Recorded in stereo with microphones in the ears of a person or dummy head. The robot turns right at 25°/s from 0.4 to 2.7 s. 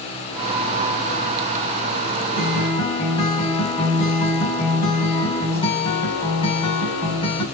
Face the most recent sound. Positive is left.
turn(degrees=30)  # may be behind; listen again after turning